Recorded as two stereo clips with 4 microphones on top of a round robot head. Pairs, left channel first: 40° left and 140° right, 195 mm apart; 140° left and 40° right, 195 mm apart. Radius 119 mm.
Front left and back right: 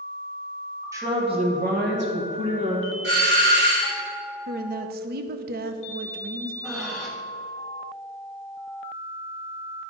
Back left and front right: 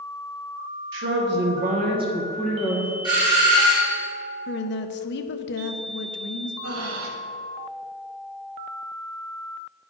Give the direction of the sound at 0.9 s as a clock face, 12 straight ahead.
2 o'clock.